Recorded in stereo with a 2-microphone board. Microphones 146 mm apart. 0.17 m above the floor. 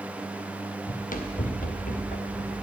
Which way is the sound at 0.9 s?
60° left (ahead or behind).